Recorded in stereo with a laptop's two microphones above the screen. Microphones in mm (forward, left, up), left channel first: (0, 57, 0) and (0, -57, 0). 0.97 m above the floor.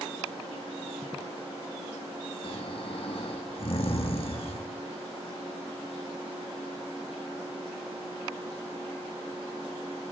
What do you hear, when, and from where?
2.4 s snoring: 55° left (ahead or behind), 1.9 m